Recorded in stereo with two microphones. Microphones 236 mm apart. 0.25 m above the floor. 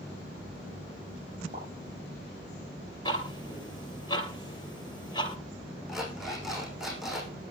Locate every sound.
1.5 s a pop: 35° right (ahead or behind), 8 m
3.0 s ticking: 20° left (ahead or behind), 2.5 m
5.9 s an alarm clock: centre (ahead or behind), 6.5 m